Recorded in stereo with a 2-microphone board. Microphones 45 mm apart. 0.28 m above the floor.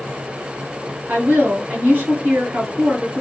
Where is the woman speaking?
40° right (ahead or behind), 2.0 m.